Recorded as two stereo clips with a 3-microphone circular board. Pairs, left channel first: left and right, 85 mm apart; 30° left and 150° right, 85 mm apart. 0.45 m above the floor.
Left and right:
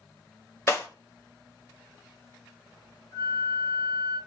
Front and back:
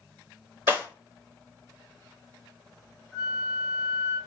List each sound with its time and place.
0.7 s breaking glass: 145° left, 0.9 m
3.1 s a flute: 115° left, 1.3 m